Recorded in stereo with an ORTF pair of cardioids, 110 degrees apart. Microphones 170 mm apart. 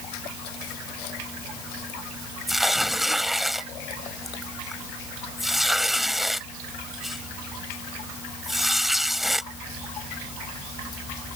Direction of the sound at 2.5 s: Straight ahead.